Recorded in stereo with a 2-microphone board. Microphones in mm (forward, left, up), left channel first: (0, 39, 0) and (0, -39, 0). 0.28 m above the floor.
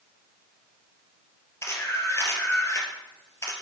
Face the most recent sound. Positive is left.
turn(degrees=35)  # may be behind; listen again after turning